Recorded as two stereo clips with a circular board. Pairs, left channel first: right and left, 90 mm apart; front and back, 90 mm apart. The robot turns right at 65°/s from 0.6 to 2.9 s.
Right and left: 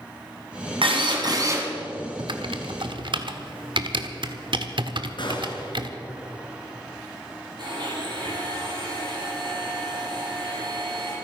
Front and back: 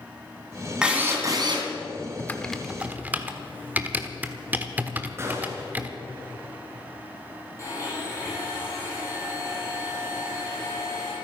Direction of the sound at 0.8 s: 100° left.